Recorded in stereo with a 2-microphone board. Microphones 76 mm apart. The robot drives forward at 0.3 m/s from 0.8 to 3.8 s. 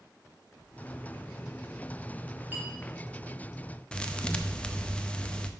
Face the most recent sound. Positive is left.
turn(degrees=15)  # may be behind; listen again after turning